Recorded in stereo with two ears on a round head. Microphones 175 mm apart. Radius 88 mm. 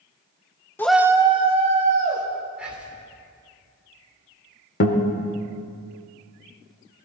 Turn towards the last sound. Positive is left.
turn(degrees=55)  # may be behind; listen again after turning